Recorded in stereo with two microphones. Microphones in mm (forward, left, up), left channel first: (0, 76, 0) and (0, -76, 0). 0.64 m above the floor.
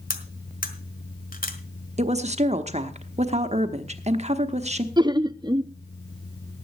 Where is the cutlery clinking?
70° left (ahead or behind), 1.4 m.